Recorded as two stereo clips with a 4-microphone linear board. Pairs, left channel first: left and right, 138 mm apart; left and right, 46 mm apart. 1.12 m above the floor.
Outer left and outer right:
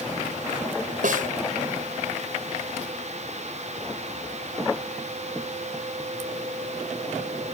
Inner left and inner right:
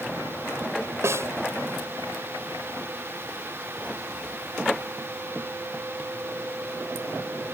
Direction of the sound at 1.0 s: 75° right (ahead or behind).